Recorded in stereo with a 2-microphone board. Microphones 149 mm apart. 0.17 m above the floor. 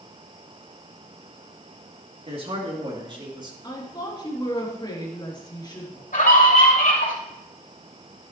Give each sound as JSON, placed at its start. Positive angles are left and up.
{"t": 2.3, "sound": "a man speaking", "side_deg": -40, "distance_m": 3.5}
{"t": 3.6, "sound": "a woman speaking", "side_deg": 30, "distance_m": 3.5}
{"t": 6.1, "sound": "a scream", "side_deg": 70, "distance_m": 4.0}